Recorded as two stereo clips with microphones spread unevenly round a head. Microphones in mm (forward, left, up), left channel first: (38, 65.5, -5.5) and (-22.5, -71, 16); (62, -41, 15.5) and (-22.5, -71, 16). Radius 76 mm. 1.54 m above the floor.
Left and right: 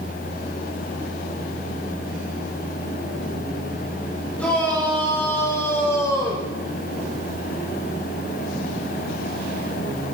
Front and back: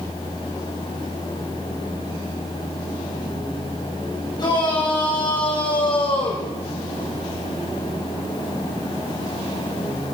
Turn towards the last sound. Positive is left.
turn(degrees=-5)